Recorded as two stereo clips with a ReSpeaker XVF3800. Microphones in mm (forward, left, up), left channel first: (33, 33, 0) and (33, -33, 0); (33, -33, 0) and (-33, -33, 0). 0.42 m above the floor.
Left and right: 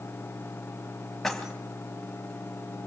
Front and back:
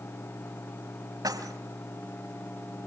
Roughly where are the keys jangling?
Behind.